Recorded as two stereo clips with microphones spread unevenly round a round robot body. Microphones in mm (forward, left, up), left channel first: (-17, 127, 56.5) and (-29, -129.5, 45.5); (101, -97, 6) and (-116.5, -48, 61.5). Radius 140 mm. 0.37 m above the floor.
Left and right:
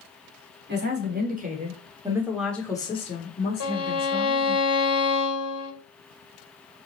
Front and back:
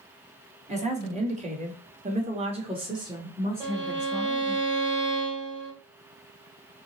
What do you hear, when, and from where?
0.7 s a woman speaking: 125° right, 1.3 m; by 4.6 s 70° left, 1.4 m
3.6 s a violin: 80° left, 1.7 m